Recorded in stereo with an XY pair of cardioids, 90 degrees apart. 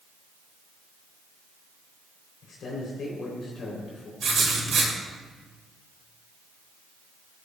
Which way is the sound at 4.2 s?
60° right.